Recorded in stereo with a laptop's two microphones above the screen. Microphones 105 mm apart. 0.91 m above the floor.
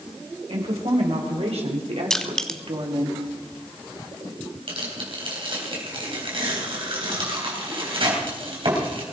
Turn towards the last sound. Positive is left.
turn(degrees=-55)  # may be behind; listen again after turning